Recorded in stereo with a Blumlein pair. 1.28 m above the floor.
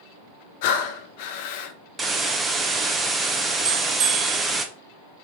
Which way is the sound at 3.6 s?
35° right.